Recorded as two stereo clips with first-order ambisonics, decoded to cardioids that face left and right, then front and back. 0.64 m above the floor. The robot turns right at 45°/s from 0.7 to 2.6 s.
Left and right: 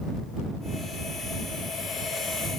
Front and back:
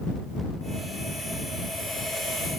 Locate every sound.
Only background noise.